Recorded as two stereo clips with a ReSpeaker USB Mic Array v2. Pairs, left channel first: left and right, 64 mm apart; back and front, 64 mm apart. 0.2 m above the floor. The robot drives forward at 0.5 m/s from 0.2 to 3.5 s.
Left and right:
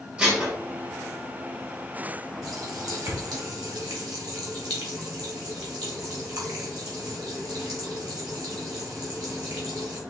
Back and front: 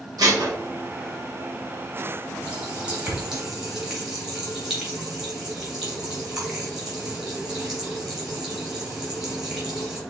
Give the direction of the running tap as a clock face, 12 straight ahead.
2 o'clock.